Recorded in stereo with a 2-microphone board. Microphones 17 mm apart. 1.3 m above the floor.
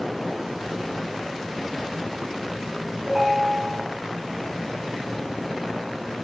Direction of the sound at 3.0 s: 25° right (ahead or behind).